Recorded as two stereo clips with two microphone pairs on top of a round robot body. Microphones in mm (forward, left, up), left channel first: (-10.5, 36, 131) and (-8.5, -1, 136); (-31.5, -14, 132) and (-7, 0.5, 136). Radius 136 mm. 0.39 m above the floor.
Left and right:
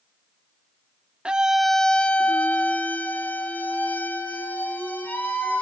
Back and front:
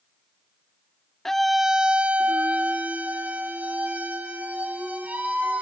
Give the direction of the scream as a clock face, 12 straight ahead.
4 o'clock.